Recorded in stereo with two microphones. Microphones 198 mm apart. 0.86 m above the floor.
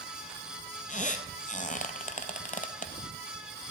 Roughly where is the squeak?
Left.